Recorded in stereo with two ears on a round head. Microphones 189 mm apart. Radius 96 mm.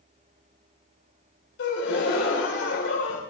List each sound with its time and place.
1.6 s a gasp: 55° left (ahead or behind), 3 m